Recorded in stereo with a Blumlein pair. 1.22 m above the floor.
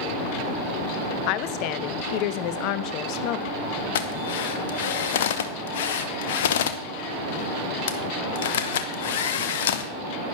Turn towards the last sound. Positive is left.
turn(degrees=55)